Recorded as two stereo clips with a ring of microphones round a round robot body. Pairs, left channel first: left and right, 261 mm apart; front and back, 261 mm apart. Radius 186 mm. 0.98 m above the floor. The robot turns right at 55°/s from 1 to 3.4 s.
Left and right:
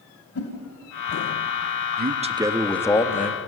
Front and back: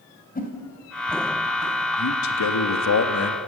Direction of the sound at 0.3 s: 60° left.